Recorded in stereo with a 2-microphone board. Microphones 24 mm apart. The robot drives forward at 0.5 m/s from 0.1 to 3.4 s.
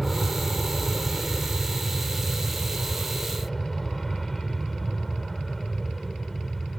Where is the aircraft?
10° left (ahead or behind).